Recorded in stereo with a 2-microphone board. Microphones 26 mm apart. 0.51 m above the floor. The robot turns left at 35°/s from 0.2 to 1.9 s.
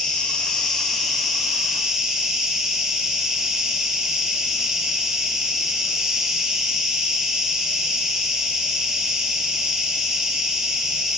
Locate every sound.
0.0 s an insect: 40° left, 1.3 m; by 11.2 s 20° right, 1.3 m